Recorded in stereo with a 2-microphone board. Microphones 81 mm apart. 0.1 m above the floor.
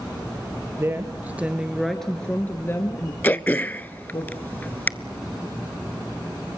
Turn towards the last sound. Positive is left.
turn(degrees=20)  # may be behind; listen again after turning